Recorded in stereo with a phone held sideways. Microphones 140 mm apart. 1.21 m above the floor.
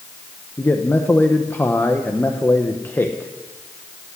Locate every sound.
0.6 s a man speaking: 15° left (ahead or behind), 1.0 m